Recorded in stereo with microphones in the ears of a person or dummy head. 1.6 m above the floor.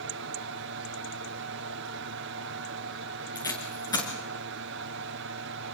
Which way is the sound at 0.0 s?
60° right (ahead or behind).